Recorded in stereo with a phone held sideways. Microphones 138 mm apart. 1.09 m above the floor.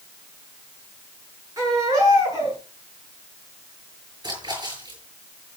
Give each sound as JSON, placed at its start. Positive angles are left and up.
{"t": 1.6, "sound": "a baby crying", "side_deg": -25, "distance_m": 7.0}
{"t": 4.2, "sound": "a splash", "side_deg": -30, "distance_m": 8.0}